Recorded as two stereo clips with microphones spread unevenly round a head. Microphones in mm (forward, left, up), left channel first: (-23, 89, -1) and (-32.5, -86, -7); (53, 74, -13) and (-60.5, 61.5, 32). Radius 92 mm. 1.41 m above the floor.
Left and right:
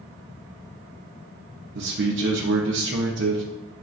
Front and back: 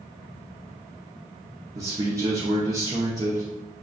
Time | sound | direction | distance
1.8 | a man speaking | 95° right | 0.6 m